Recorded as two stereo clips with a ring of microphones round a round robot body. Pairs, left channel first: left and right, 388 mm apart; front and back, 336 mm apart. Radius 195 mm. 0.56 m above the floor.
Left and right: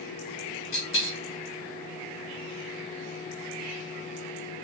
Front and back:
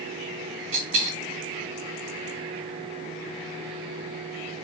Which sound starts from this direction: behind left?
A dropped coin, at 0.7 s.